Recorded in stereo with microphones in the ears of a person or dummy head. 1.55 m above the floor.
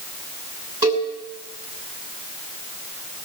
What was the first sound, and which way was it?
A cowbell, 25° right (ahead or behind).